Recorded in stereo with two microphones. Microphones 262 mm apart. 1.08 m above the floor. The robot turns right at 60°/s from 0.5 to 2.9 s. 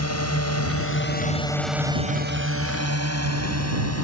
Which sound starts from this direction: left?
A drone, at 0.0 s.